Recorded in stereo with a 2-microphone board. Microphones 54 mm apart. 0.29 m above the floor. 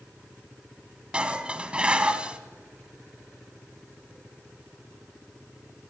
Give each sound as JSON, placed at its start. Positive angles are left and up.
{"t": 1.1, "sound": "dishes clattering", "side_deg": -20, "distance_m": 1.3}